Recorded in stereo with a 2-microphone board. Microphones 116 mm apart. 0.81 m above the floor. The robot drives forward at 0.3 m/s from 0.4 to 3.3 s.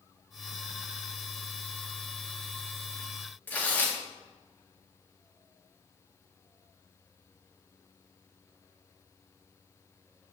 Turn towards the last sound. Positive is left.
turn(degrees=15)  # may be behind; listen again after turning